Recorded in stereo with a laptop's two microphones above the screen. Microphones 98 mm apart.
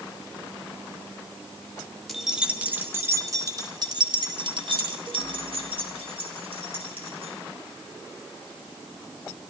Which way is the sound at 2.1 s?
Centre (ahead or behind).